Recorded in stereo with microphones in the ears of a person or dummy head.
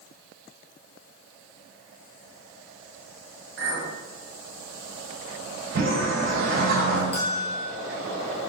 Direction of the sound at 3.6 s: 60° right (ahead or behind).